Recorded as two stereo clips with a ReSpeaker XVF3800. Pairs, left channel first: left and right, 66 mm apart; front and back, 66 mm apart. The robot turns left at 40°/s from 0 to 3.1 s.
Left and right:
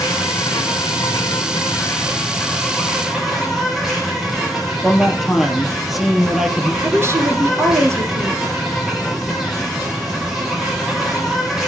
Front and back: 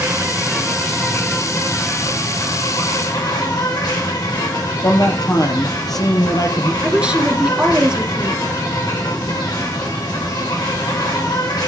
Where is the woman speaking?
110° right, 2 m.